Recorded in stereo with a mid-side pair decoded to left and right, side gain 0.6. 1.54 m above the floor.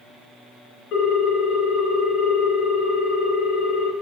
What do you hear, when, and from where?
0.9 s a ringtone: 65° left, 1.6 m